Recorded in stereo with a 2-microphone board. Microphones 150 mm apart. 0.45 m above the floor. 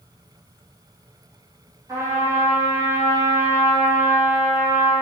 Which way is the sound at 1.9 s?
20° right (ahead or behind).